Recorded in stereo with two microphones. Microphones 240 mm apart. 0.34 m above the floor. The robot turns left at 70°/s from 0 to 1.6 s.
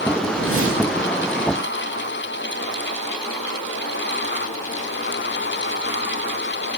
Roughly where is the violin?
I don't hear a violin.